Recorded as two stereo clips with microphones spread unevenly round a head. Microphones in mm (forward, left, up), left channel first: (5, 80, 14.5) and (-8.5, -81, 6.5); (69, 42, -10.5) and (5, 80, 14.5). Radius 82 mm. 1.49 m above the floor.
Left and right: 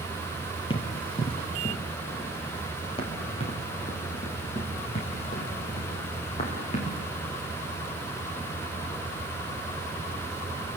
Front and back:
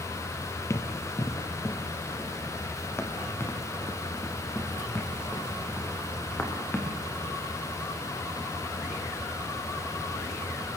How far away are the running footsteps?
About 2.5 m.